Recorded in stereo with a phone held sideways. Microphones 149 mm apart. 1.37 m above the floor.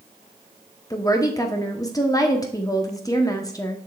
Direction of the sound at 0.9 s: 25° left (ahead or behind).